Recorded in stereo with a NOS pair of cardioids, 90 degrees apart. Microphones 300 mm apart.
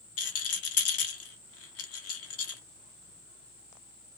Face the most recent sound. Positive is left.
turn(degrees=50)